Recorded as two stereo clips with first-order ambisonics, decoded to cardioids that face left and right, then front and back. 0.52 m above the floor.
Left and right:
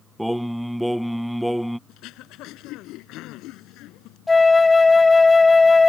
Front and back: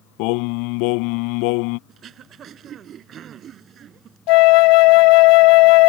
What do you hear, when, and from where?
0.2 s singing: straight ahead
1.9 s throat clearing: 125° left
4.3 s a flute: 10° left